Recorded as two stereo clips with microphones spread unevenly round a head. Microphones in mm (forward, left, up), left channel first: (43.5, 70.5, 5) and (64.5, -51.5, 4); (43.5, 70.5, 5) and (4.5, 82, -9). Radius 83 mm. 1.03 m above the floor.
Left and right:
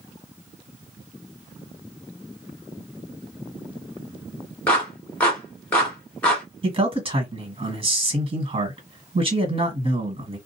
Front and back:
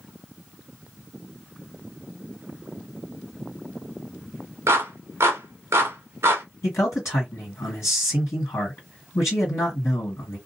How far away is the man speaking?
About 1.6 m.